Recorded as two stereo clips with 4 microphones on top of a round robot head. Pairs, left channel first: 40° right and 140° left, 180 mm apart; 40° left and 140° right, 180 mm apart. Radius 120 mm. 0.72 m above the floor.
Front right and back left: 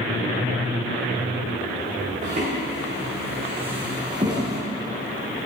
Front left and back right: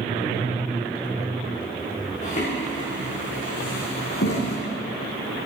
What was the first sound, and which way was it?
Footsteps, 90° left.